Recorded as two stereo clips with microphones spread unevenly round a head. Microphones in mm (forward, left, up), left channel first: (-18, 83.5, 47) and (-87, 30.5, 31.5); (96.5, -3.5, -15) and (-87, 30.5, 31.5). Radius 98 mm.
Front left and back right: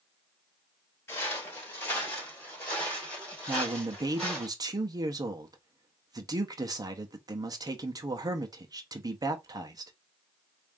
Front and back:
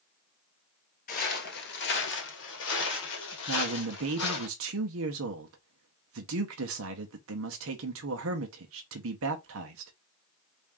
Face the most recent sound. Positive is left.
turn(degrees=-175)